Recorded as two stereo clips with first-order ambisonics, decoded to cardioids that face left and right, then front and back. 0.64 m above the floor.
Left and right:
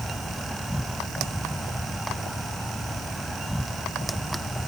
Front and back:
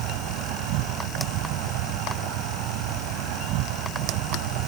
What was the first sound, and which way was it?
An insect, 175° left.